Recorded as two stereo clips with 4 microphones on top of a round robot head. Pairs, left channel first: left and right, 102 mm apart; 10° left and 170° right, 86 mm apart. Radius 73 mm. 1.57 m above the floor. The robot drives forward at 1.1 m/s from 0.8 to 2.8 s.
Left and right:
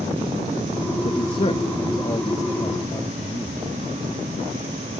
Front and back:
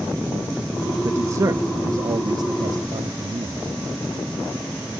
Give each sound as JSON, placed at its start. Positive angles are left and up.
{"t": 1.0, "sound": "a man speaking", "azimuth_deg": 135}